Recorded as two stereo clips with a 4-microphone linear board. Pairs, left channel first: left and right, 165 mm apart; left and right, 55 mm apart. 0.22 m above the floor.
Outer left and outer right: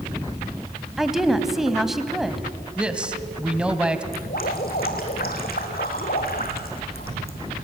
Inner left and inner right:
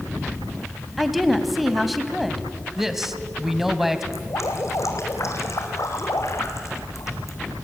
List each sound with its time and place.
1.0 s a woman speaking: centre (ahead or behind), 1.2 m
2.8 s a man speaking: 5° right (ahead or behind), 1.3 m
4.1 s dripping: 65° left (ahead or behind), 2.5 m